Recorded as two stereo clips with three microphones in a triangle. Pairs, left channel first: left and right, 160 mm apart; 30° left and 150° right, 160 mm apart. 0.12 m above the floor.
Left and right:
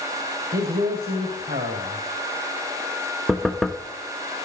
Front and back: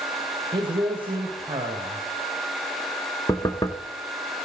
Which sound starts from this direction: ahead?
Knocking, at 3.3 s.